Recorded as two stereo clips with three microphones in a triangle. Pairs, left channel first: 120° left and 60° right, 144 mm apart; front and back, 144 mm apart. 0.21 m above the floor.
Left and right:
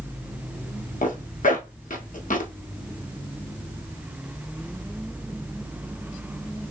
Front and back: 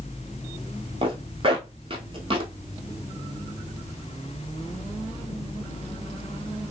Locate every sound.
1.0 s a zipper: 135° left, 0.8 m